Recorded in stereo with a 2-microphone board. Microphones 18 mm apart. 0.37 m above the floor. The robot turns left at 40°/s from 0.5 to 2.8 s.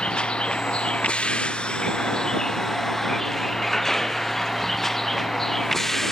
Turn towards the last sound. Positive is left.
turn(degrees=20)  # may be behind; listen again after turning